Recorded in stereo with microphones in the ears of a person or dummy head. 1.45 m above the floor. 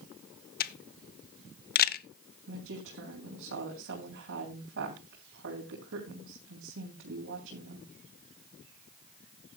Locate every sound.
0.6 s a camera shutter: 50° left (ahead or behind), 0.6 m
2.5 s a woman speaking: 65° right (ahead or behind), 3 m